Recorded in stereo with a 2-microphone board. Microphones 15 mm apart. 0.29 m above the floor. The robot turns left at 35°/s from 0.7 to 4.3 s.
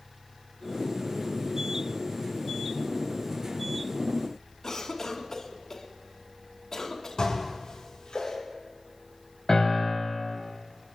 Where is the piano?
55° left (ahead or behind), 3.5 m.